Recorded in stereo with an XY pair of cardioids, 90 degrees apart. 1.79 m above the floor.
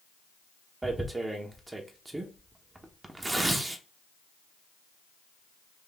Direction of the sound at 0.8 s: 20° right.